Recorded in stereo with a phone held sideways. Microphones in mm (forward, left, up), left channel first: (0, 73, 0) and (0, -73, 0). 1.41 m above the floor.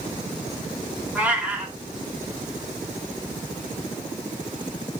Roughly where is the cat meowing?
Centre.